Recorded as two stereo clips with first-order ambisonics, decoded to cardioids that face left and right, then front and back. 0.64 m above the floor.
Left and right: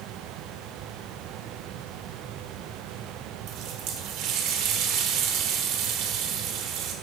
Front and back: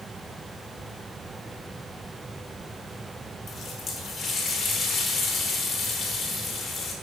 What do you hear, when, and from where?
3.5 s a running tap: 65° right, 1.2 m